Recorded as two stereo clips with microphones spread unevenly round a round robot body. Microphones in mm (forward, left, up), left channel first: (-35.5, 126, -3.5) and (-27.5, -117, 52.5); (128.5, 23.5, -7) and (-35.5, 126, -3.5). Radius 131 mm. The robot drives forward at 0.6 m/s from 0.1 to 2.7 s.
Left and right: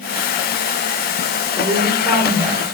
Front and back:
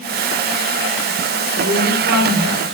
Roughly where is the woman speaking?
Behind.